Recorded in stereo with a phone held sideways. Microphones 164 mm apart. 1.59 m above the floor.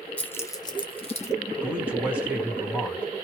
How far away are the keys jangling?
About 0.6 m.